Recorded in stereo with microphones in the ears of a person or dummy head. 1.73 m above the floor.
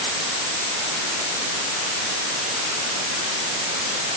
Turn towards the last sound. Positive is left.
No sound to turn to.